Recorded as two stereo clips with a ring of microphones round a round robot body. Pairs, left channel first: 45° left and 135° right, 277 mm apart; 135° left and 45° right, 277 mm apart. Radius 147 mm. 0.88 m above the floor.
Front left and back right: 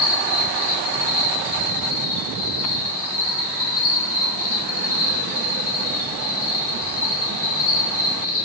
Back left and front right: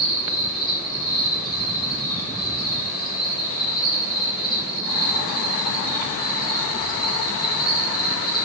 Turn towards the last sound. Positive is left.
turn(degrees=60)